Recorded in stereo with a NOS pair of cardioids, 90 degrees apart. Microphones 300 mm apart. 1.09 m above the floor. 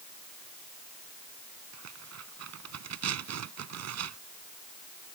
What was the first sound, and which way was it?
Tearing paper, 60° right.